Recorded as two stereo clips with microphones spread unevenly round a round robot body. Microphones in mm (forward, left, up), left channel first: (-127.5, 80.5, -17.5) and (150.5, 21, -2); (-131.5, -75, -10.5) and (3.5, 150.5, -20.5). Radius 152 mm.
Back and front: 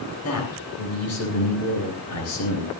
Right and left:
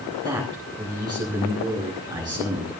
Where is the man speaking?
135° left, 8 m.